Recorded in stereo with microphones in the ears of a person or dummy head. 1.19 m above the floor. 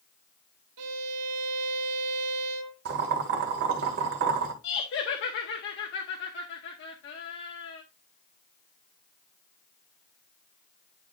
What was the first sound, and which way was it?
A violin, 80° right.